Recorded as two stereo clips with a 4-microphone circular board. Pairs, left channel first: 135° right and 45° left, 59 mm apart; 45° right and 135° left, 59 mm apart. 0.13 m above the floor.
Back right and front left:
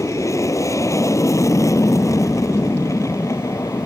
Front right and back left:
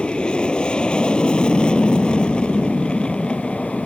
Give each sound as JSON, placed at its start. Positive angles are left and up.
{"t": 0.0, "sound": "an aircraft", "azimuth_deg": -120}